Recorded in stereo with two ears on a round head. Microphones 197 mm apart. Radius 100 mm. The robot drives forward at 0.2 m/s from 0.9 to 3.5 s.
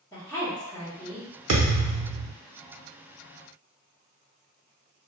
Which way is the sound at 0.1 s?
15° left (ahead or behind).